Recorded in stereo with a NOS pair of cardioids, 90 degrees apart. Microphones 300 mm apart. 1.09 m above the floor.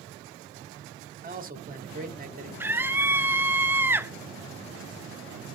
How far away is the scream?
About 0.8 m.